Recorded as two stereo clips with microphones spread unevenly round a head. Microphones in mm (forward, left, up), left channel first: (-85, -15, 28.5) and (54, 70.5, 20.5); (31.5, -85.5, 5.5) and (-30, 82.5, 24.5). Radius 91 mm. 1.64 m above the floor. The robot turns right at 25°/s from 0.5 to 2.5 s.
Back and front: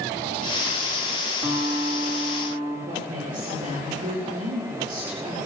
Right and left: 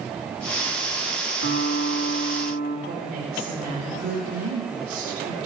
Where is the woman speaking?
75° left, 5 m.